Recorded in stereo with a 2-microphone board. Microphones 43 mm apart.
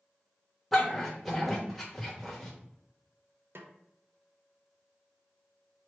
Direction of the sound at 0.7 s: Centre (ahead or behind).